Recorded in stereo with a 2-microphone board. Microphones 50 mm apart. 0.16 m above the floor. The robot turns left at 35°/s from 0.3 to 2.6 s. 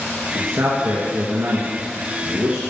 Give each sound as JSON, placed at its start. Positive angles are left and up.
{"t": 0.3, "sound": "a man speaking", "side_deg": -50, "distance_m": 2.5}